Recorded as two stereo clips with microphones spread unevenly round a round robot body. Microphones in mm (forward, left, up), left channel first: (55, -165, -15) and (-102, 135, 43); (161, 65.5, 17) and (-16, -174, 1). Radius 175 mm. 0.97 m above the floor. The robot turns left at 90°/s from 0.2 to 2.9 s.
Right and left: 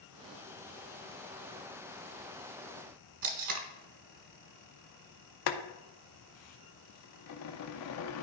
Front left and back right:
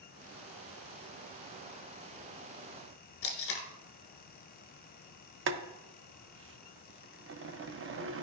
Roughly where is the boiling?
Right.